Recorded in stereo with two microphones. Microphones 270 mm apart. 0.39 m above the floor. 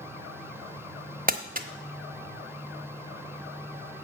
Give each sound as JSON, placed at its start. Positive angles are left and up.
{"t": 1.3, "sound": "crumpling", "side_deg": -30, "distance_m": 1.0}